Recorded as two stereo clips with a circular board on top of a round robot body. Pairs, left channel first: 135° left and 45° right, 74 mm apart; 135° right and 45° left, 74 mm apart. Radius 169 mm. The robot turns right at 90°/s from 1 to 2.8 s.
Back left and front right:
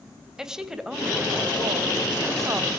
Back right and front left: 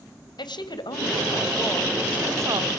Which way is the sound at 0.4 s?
125° right.